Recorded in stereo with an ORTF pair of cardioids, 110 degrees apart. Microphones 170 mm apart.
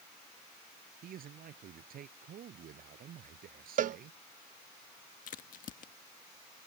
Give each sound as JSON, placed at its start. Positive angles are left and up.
{"t": 1.0, "sound": "a man speaking", "azimuth_deg": -60}
{"t": 3.8, "sound": "a cowbell", "azimuth_deg": -50}
{"t": 5.3, "sound": "a crack", "azimuth_deg": 55}